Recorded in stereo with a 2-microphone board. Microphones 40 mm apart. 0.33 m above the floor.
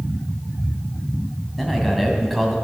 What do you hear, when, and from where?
1.6 s a man speaking: centre (ahead or behind), 3 m